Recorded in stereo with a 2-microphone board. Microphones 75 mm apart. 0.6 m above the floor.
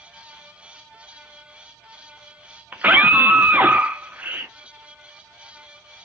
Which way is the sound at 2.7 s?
20° right (ahead or behind).